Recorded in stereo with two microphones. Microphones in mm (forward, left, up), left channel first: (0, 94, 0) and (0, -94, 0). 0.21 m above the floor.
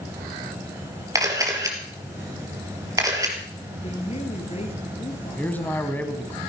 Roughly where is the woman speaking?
Left.